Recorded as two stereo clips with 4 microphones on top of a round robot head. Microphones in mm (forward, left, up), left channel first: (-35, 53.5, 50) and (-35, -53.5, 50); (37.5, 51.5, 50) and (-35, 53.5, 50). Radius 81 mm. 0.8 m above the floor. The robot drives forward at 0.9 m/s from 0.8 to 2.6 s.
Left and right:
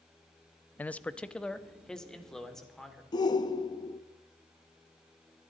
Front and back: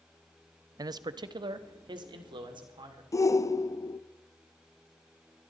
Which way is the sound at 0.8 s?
165° left.